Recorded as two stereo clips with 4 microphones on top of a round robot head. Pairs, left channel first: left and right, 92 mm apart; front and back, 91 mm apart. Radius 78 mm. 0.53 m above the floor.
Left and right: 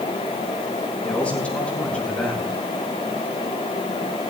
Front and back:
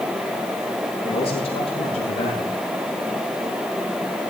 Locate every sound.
1.0 s a man speaking: 10° left, 7 m